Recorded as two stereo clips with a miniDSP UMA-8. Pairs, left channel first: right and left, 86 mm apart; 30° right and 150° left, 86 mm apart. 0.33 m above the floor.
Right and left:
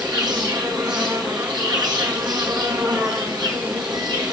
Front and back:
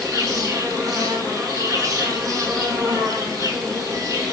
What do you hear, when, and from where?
0.0 s an insect: 110° left, 3.5 m